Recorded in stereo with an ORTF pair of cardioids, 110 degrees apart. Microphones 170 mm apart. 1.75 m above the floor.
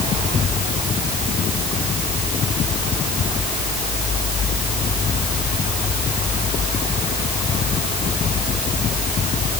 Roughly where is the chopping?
I don't hear chopping.